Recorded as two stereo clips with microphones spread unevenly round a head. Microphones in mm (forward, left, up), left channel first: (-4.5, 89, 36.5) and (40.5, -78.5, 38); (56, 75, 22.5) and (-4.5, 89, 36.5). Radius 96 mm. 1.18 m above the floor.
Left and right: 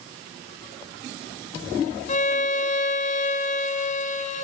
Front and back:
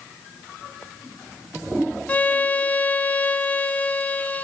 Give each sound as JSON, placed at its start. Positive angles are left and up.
{"t": 2.1, "sound": "a violin", "azimuth_deg": 60, "distance_m": 0.7}